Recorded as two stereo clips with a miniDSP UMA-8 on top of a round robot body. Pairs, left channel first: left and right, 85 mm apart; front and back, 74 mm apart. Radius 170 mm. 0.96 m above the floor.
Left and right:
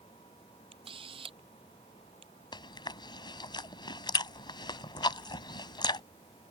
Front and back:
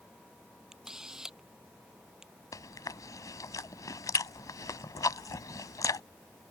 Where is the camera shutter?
95° right.